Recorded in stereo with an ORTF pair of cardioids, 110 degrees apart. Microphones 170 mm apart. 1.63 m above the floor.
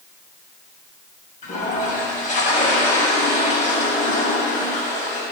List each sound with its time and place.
1.4 s a toilet flushing: 50° left, 7.5 m